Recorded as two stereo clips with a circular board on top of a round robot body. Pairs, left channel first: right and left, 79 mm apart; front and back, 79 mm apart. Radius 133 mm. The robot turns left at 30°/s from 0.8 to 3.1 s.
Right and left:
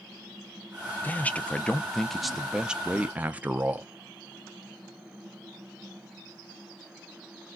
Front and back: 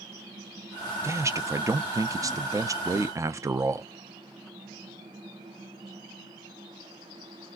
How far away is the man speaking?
About 0.7 m.